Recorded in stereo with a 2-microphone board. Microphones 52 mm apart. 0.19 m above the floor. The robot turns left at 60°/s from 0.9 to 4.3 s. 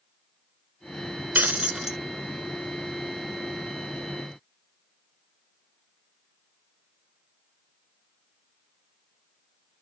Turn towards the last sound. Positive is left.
turn(degrees=45)